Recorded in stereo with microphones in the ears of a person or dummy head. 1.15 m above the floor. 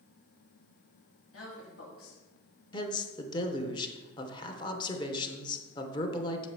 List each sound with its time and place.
1.3 s a woman speaking: 75° left (ahead or behind), 1.9 m
2.7 s a man speaking: 30° left (ahead or behind), 0.8 m